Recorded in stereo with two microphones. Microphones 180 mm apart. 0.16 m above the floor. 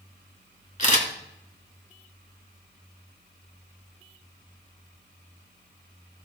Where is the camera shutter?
40° left (ahead or behind), 2.5 m.